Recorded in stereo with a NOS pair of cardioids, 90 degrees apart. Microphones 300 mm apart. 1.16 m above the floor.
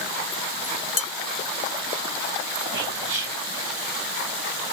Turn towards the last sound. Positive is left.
turn(degrees=-40)